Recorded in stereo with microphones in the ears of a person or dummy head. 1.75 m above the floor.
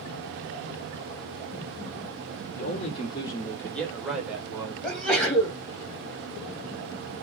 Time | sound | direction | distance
2.5 | a man speaking | 40° left (ahead or behind) | 1.3 m
4.8 | a sneeze | 5° left (ahead or behind) | 1.6 m